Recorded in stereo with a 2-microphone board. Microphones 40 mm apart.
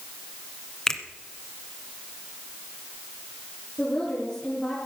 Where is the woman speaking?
20° left (ahead or behind), 5 m.